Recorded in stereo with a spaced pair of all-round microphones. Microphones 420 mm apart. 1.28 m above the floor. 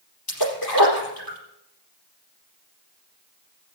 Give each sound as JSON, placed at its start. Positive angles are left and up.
{"t": 0.3, "sound": "a splash", "side_deg": 60, "distance_m": 4.5}